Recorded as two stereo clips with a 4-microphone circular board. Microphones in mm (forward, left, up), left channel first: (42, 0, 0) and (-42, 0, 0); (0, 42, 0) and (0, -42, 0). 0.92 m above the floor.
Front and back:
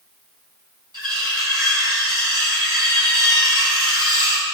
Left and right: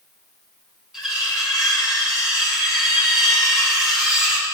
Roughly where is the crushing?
I don't hear crushing.